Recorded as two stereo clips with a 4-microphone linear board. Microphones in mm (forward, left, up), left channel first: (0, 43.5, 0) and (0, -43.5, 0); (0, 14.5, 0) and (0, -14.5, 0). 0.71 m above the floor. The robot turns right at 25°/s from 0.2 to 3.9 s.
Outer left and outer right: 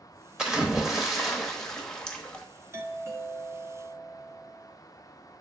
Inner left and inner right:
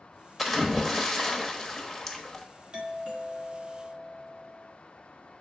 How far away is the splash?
About 1.1 m.